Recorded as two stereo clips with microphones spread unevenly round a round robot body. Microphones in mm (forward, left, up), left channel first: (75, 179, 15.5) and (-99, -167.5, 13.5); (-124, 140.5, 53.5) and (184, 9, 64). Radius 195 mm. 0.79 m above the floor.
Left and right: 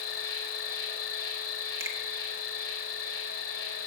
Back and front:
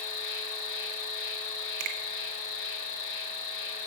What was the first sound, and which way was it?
An insect, 120° left.